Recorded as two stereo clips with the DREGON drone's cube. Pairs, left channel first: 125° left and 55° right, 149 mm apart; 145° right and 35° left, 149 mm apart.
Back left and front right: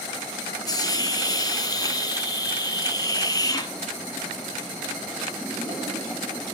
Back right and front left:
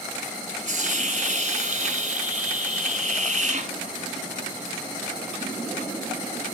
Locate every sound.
0.7 s a hiss: 60° left, 1.2 m